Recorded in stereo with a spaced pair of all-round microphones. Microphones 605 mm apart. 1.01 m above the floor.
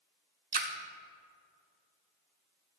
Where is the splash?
45° right (ahead or behind), 0.8 m.